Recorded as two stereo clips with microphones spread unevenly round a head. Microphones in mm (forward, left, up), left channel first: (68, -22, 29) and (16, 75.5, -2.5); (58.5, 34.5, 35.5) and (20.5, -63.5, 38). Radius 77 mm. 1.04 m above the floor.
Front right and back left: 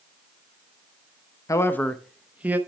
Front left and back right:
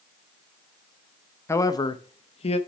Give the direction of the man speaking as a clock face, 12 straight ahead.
12 o'clock.